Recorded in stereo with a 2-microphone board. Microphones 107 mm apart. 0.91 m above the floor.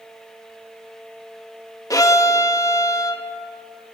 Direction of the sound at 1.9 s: 30° left (ahead or behind).